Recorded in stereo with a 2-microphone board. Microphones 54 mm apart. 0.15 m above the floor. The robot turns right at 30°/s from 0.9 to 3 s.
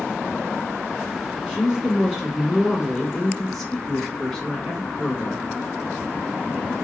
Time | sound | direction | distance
1.5 | a woman speaking | 15° right (ahead or behind) | 1.3 m